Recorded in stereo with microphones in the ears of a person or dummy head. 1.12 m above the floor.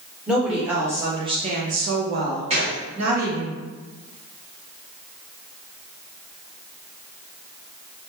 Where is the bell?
I don't hear a bell.